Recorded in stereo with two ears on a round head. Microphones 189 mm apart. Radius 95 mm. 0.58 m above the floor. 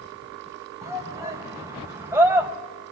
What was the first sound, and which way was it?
A shout, 15° right (ahead or behind).